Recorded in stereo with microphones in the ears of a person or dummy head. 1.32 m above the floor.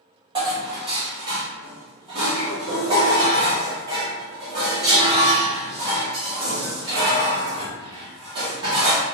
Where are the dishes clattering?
30° right (ahead or behind), 1.3 m.